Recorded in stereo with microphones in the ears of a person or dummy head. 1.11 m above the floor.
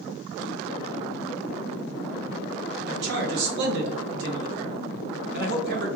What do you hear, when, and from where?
2.9 s a man speaking: 60° right (ahead or behind), 1.0 m